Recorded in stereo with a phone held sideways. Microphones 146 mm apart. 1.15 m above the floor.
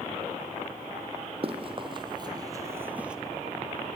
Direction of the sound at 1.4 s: 40° right (ahead or behind).